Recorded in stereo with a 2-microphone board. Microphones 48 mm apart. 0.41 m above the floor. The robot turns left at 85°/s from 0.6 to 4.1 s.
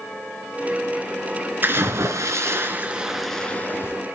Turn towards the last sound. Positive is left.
turn(degrees=105)